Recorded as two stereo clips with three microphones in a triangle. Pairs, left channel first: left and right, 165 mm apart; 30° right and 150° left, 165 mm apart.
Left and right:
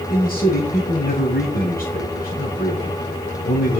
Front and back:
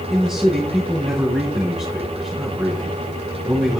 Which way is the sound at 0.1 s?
65° left.